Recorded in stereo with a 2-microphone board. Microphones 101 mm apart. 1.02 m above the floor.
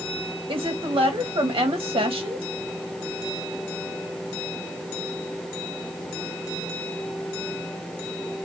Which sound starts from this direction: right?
A woman speaking, at 0.5 s.